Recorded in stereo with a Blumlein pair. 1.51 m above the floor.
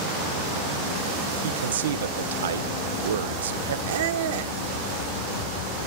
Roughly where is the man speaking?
Ahead right.